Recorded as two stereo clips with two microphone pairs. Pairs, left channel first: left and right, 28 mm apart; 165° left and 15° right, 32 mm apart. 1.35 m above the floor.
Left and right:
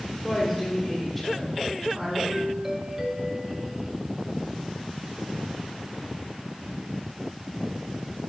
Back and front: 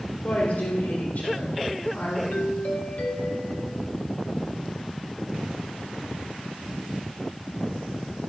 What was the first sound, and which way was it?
A woman speaking, 165° left.